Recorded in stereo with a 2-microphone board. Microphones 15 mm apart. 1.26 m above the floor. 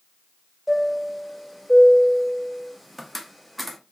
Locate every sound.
0.7 s a chime: 5° right (ahead or behind), 0.6 m